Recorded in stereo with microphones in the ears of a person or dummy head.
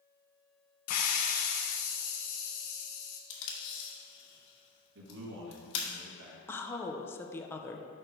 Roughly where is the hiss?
Left.